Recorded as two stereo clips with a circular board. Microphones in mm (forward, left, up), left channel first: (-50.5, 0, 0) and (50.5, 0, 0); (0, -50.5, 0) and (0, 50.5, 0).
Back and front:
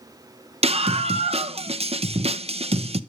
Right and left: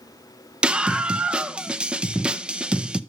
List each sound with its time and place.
0.6 s a scream: 10° left, 0.7 m